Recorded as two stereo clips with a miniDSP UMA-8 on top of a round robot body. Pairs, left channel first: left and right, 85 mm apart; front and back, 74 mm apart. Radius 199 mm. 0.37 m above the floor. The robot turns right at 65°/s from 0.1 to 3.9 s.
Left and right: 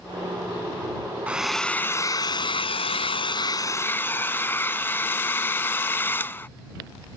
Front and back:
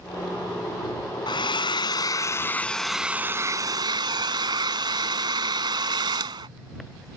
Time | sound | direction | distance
1.3 | a hair dryer | 15° right | ?